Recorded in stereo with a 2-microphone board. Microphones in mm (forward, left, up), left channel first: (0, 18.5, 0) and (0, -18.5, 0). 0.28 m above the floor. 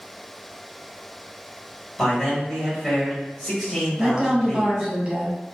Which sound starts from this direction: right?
A woman speaking, at 4.0 s.